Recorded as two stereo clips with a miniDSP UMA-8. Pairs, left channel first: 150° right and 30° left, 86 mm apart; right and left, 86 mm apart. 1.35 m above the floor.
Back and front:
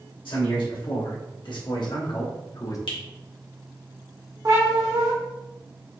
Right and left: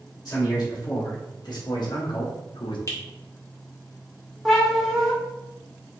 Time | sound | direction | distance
0.2 | a man speaking | 135° right | 1.9 m
2.9 | a finger snap | 145° right | 1.2 m
4.5 | a cat meowing | 5° right | 1.0 m